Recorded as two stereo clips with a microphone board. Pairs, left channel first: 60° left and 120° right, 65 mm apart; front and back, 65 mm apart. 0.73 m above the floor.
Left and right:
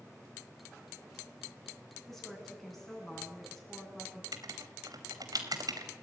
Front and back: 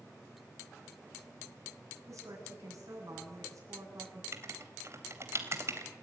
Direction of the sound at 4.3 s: 135° right.